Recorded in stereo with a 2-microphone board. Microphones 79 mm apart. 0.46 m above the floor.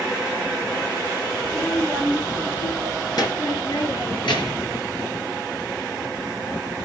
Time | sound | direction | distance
1.4 | a child speaking | 20° left (ahead or behind) | 4 m